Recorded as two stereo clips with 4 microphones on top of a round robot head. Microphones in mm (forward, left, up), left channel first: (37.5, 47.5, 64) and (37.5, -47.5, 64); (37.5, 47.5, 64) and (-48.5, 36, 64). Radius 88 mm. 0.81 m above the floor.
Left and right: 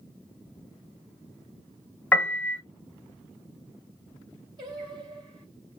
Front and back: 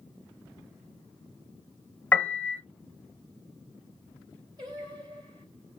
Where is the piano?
40° left, 1.0 m.